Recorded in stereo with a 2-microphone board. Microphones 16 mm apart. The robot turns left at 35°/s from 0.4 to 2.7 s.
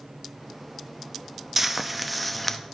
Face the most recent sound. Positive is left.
turn(degrees=160)